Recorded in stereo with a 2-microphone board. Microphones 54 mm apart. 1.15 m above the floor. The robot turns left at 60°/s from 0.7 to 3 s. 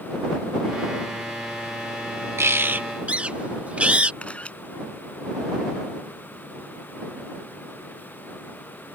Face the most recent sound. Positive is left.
turn(degrees=25)  # may be behind; listen again after turning